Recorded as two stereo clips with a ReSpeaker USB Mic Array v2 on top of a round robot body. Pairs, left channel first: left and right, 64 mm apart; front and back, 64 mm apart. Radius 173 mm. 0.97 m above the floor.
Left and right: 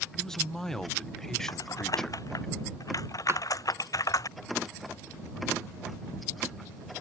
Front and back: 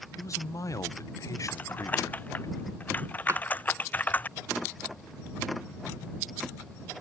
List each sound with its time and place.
0.2 s a man speaking: 10° left
1.5 s typing on a keyboard: 65° left
3.3 s a drawer: 135° right